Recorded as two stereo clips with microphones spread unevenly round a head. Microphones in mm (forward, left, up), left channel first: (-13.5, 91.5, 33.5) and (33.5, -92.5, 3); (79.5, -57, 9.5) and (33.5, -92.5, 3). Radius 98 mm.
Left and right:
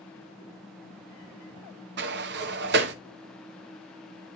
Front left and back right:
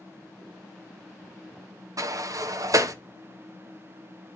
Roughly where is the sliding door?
Behind right.